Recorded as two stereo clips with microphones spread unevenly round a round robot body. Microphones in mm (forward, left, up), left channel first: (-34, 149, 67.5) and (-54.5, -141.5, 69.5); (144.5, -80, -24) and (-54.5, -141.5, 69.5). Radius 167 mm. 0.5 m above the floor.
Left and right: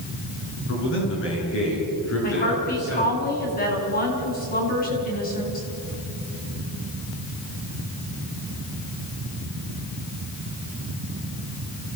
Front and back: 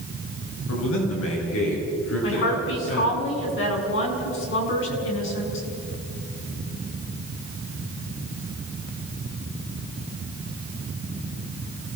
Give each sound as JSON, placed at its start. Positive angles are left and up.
{"t": 0.7, "sound": "a man speaking", "azimuth_deg": 30, "distance_m": 6.5}
{"t": 2.2, "sound": "a woman speaking", "azimuth_deg": 25, "distance_m": 5.0}